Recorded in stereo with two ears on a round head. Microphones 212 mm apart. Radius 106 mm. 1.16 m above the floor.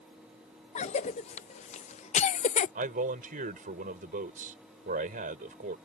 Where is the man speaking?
40° right (ahead or behind).